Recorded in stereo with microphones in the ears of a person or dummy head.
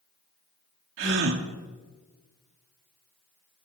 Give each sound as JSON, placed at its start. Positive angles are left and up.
{"t": 1.0, "sound": "a gasp", "side_deg": -70, "distance_m": 1.8}